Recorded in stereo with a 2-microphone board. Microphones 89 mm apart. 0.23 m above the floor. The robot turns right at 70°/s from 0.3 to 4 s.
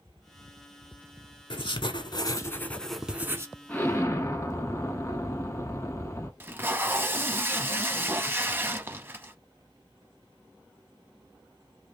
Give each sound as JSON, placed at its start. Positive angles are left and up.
{"t": 1.5, "sound": "writing", "azimuth_deg": 80, "distance_m": 0.6}
{"t": 3.7, "sound": "an explosion", "side_deg": 15, "distance_m": 0.8}
{"t": 6.4, "sound": "tape being pulled", "side_deg": -25, "distance_m": 0.6}